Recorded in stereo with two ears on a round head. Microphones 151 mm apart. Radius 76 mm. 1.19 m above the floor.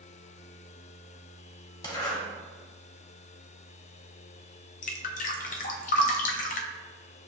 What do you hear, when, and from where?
1.8 s a zipper: 25° left (ahead or behind), 1.0 m
4.8 s dripping: 50° left (ahead or behind), 0.5 m